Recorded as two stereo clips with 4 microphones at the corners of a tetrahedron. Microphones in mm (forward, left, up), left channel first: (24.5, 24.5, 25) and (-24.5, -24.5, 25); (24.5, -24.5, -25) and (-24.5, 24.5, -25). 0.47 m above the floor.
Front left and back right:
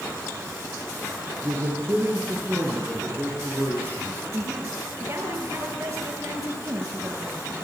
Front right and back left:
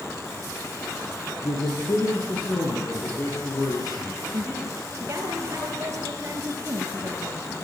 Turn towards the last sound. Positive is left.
turn(degrees=-170)